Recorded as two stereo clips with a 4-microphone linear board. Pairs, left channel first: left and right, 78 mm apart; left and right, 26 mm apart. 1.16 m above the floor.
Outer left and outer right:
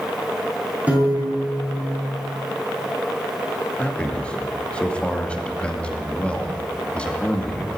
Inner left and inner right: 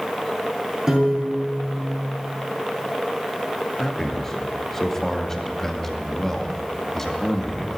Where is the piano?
20° right (ahead or behind), 7 m.